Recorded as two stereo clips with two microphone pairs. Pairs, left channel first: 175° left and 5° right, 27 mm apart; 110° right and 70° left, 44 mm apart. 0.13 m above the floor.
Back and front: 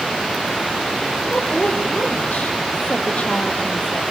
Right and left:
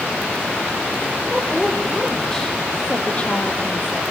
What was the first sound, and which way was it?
A woman speaking, 160° left.